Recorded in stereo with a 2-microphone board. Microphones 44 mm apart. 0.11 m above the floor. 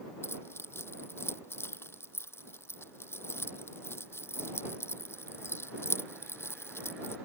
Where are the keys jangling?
70° left (ahead or behind).